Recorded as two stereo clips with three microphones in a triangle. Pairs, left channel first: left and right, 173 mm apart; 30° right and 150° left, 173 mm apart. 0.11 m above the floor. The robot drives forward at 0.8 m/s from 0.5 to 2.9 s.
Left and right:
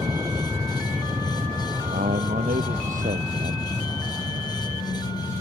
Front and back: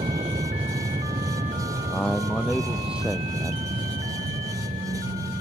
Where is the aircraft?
160° right; by 5.4 s 175° right.